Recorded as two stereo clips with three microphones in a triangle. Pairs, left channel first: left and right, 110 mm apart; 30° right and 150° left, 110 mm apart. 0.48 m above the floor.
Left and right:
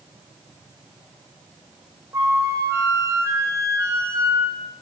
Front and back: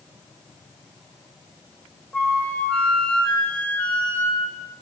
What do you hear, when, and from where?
2.1 s a flute: 100° right, 1.2 m